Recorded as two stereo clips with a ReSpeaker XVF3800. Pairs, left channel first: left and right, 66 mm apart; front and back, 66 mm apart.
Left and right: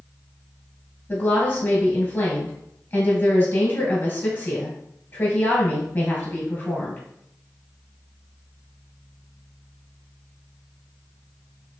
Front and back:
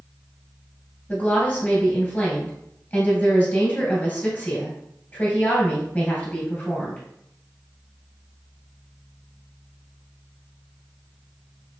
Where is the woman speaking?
50° left, 1.9 m.